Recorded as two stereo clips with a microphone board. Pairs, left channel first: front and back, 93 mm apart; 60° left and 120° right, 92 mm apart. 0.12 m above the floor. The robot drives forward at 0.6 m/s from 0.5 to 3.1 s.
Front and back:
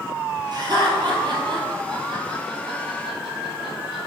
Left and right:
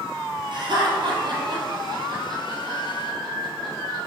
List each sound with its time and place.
0.5 s laughter: 135° right, 2.5 m; by 4.0 s 155° right, 3.5 m